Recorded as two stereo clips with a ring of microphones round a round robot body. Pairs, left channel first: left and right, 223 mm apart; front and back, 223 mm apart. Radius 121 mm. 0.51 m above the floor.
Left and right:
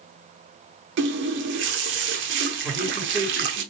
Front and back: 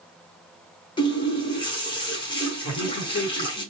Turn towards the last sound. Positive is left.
turn(degrees=0)